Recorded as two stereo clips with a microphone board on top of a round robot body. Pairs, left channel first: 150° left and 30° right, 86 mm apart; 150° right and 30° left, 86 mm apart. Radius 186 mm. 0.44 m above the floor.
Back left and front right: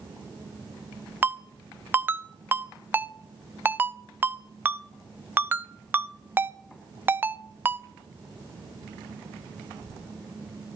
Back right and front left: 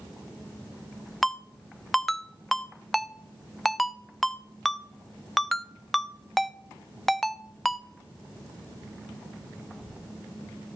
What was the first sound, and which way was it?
A ringtone, 60° right.